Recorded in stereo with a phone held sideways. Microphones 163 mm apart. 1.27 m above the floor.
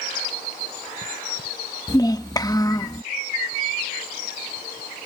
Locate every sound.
1.9 s a child speaking: 25° left (ahead or behind)